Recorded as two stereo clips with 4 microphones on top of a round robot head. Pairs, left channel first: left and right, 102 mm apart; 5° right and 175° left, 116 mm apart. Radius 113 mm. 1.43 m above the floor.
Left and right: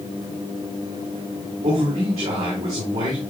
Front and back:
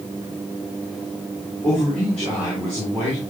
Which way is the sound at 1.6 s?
90° right.